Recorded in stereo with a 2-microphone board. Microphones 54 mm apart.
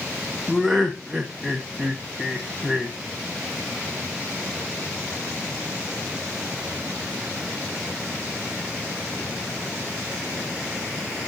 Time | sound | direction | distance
0.5 | laughter | centre (ahead or behind) | 1.0 m